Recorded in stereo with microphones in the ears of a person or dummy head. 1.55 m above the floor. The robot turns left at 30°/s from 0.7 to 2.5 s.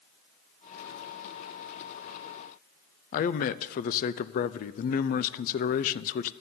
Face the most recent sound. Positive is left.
turn(degrees=50)  # may be behind; listen again after turning